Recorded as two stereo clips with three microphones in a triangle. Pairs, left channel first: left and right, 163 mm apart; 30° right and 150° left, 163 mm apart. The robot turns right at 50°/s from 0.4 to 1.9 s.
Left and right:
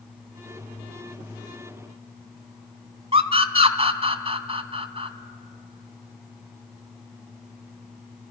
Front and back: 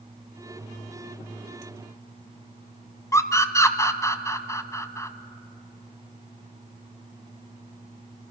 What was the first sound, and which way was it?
A scream, 90° right.